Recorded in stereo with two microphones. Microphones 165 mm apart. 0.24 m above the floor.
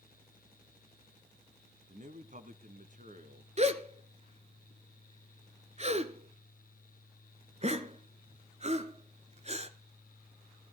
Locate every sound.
1.9 s a man speaking: 50° right (ahead or behind), 1.5 m
3.6 s a gasp: 40° right (ahead or behind), 1.3 m